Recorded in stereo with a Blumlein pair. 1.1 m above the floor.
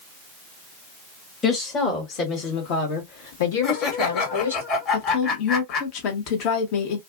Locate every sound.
1.4 s a woman speaking: 20° left, 1.5 m; by 4.6 s 75° left, 2 m
3.6 s laughter: 30° left, 1.8 m
4.9 s a woman speaking: 40° left, 1.3 m